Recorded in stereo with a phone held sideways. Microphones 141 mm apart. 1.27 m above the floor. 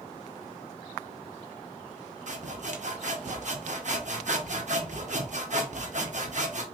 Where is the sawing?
60° right (ahead or behind), 0.8 m.